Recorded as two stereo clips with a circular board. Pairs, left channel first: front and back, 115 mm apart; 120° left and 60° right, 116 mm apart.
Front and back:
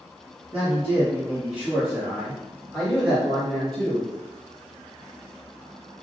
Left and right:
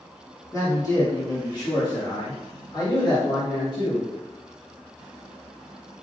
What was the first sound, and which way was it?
A man speaking, 145° left.